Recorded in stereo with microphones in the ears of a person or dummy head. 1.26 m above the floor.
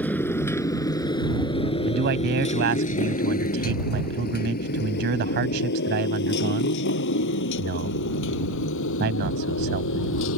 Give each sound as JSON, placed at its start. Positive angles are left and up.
{"t": 0.0, "sound": "a motorcycle", "side_deg": 10}
{"t": 1.9, "sound": "a man speaking", "side_deg": -55}